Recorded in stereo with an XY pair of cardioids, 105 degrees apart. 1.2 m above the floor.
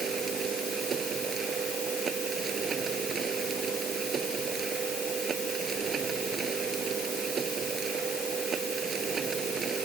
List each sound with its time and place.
0.0 s a machine running: 50° right